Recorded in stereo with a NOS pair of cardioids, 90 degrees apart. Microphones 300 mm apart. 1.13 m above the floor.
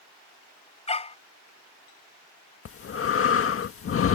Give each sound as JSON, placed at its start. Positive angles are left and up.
{"t": 0.9, "sound": "a dog barking", "azimuth_deg": 20}
{"t": 2.6, "sound": "breathing", "azimuth_deg": 45}